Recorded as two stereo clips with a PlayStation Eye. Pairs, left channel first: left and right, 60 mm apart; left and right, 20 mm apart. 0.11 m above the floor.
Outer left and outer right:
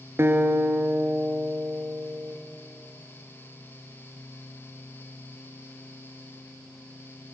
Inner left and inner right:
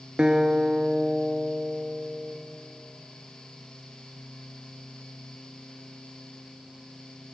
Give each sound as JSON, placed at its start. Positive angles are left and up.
{"t": 0.2, "sound": "a guitar", "side_deg": -40, "distance_m": 0.8}